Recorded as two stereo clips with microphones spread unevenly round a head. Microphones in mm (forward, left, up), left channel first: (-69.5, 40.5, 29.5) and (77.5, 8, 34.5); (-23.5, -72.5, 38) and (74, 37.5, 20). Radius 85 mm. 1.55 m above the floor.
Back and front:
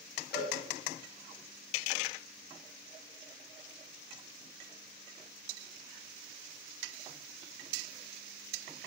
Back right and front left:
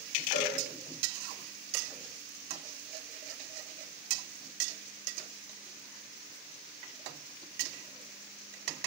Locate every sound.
0.3 s a cowbell: 160° right, 5.5 m